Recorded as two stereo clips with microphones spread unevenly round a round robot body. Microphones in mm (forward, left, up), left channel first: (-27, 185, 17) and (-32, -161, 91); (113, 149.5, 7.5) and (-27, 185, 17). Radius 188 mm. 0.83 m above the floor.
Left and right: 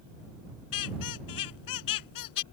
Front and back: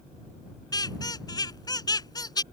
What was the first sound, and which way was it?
A squeak, 45° left.